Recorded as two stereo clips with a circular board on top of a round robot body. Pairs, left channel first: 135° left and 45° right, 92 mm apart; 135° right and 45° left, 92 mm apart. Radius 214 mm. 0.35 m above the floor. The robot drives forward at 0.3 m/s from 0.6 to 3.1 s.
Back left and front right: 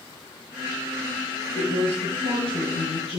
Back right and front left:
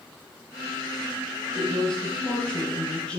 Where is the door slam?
No door slam in this recording.